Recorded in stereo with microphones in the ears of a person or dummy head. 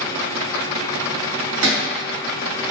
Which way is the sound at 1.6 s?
75° right (ahead or behind).